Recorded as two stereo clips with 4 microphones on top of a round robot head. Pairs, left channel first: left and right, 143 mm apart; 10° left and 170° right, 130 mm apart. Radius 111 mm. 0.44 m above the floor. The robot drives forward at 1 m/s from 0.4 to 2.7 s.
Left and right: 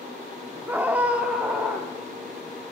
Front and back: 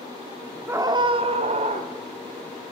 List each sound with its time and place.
0.7 s a scream: 140° right, 0.7 m; by 1.9 s 175° right, 1.6 m